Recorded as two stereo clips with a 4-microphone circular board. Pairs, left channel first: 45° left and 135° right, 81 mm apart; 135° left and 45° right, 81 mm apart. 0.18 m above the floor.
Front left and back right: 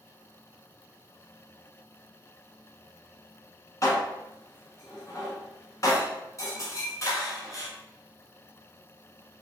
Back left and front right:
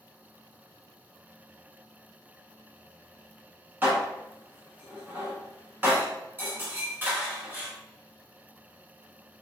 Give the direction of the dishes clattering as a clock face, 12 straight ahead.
12 o'clock.